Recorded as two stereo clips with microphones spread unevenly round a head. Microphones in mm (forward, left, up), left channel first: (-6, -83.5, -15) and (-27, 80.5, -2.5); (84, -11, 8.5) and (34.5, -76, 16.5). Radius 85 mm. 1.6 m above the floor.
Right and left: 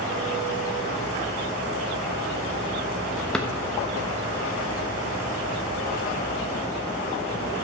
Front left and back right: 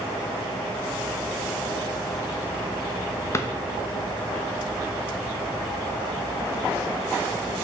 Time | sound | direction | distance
3.3 | a drawer | 5° left | 1.0 m